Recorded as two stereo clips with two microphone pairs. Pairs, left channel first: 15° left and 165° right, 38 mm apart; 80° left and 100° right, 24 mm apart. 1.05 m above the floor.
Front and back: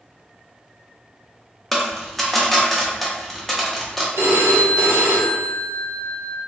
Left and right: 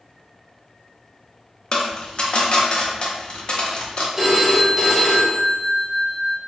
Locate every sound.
1.7 s a dropped coin: 100° left, 0.7 m
4.2 s a phone ringing: 175° right, 0.8 m